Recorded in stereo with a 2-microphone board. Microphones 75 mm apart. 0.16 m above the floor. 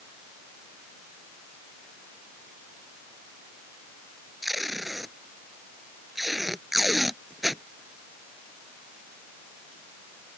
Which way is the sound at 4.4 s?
Centre (ahead or behind).